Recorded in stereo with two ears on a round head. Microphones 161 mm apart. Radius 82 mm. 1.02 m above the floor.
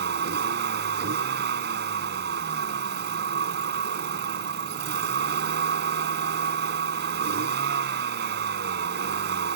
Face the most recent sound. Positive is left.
turn(degrees=-65)  # may be behind; listen again after turning